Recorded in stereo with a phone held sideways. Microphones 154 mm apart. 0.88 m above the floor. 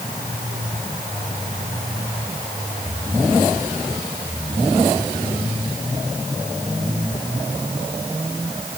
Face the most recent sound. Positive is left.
No sound to turn to.